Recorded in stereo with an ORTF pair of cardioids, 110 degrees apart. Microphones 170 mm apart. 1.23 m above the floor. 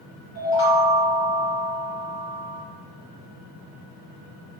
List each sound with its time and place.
0.3 s a chime: 60° left, 1.4 m